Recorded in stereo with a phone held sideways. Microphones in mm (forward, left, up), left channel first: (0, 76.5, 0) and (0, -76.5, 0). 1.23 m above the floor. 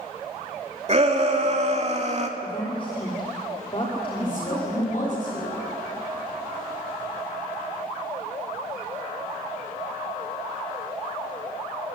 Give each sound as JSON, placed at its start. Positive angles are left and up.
{"t": 0.9, "sound": "a shout", "side_deg": -45, "distance_m": 3.5}
{"t": 2.4, "sound": "a woman speaking", "side_deg": 35, "distance_m": 3.5}
{"t": 4.2, "sound": "a woman speaking", "side_deg": 55, "distance_m": 7.0}